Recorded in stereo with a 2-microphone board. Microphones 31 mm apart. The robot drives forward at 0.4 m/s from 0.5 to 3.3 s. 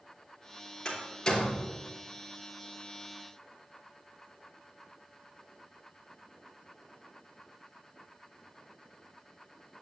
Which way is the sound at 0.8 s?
20° left (ahead or behind).